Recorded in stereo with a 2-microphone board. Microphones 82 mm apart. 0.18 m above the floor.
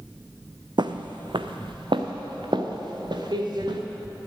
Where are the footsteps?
65° right (ahead or behind), 0.6 m; by 3.8 s 60° right (ahead or behind), 2 m.